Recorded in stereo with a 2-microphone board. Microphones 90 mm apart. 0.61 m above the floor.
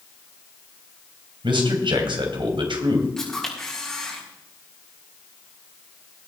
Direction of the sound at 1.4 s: 70° right (ahead or behind).